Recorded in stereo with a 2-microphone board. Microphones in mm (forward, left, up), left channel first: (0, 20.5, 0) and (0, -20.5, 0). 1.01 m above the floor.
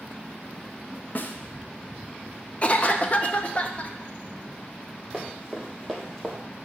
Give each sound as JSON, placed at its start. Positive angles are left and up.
{"t": 1.1, "sound": "a snare drum", "side_deg": 45, "distance_m": 0.6}
{"t": 2.6, "sound": "a cough", "side_deg": 30, "distance_m": 0.6}
{"t": 5.1, "sound": "running footsteps", "side_deg": -15, "distance_m": 2.0}